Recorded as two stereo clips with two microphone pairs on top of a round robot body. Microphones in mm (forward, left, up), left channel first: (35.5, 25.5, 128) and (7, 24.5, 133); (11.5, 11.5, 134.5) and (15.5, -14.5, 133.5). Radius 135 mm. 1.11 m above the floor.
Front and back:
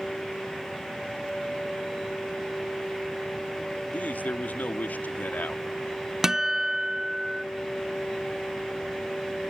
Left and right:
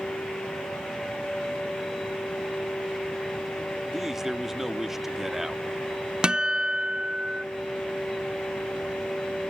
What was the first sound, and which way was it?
A man speaking, 5° right.